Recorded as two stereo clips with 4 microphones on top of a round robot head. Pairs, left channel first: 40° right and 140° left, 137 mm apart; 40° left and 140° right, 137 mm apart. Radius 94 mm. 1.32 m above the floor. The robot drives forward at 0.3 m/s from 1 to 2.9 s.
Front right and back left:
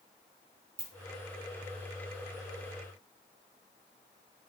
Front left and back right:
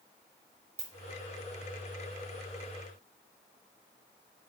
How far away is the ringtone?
About 0.7 m.